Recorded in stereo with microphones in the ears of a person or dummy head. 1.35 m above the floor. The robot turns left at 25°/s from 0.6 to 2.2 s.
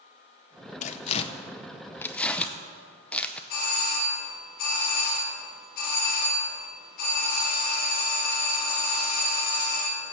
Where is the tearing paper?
40° left (ahead or behind), 0.6 m; by 3.4 s 10° left (ahead or behind), 0.6 m.